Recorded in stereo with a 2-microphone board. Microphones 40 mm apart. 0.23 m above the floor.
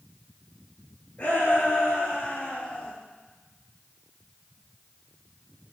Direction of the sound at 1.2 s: 45° left (ahead or behind).